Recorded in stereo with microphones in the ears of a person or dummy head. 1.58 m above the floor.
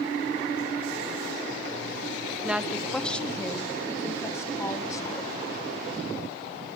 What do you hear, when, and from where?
2.4 s a woman speaking: 10° right (ahead or behind), 0.9 m; by 5.4 s 20° left (ahead or behind), 3 m